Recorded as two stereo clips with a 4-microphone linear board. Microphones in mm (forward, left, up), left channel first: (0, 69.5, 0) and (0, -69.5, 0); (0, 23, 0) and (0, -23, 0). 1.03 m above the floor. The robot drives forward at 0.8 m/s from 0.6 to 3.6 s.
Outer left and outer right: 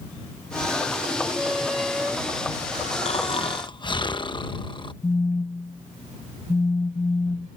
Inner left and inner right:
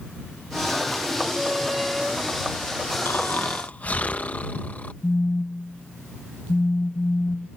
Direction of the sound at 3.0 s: 50° left (ahead or behind).